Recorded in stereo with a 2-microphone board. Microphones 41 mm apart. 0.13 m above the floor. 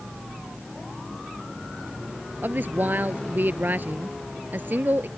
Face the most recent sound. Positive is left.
turn(degrees=-50)  # may be behind; listen again after turning